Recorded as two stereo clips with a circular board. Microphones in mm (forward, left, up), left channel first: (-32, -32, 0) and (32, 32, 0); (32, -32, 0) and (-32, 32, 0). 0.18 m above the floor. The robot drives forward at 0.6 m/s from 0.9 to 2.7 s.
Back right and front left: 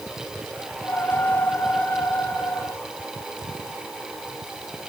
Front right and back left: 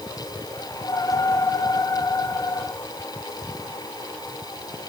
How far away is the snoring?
I don't hear snoring.